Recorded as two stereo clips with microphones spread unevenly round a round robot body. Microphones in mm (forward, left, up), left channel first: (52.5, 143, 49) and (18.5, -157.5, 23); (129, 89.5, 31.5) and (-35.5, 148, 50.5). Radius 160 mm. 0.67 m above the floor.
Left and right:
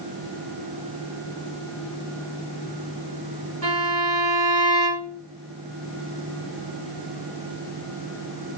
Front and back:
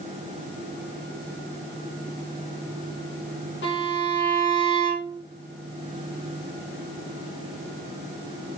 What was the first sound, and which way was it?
A violin, 55° right.